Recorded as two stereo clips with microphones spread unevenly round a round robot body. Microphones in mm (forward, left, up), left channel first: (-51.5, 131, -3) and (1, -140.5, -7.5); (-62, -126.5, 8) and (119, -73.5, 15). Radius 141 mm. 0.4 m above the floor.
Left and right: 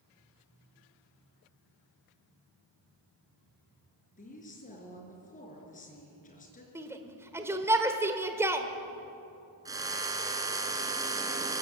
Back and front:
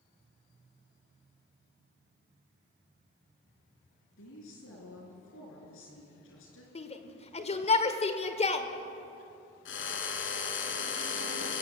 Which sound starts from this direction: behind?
A woman speaking, at 4.2 s.